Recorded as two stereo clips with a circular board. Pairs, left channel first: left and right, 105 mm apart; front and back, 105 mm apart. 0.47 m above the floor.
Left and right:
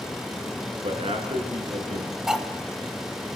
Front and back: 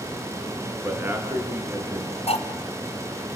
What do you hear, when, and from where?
0.8 s a man speaking: 110° right, 6 m
2.3 s cutlery clinking: 5° right, 2.5 m